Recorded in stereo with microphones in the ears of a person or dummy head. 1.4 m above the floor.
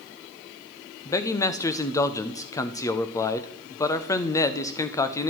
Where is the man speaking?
20° left (ahead or behind), 0.5 m.